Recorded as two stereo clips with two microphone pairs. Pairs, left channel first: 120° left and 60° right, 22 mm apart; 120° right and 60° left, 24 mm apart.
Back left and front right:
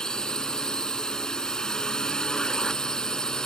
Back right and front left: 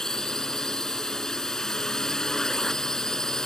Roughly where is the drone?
Behind.